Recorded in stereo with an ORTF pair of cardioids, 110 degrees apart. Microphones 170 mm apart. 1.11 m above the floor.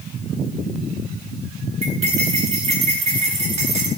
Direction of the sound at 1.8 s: 40° right.